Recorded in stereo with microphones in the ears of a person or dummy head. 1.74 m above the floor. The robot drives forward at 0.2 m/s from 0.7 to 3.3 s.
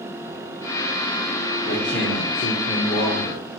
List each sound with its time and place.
1.6 s a man speaking: 85° left, 5.5 m